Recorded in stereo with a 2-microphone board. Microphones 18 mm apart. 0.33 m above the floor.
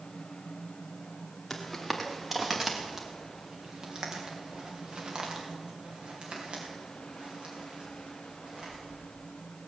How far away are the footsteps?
About 2 m.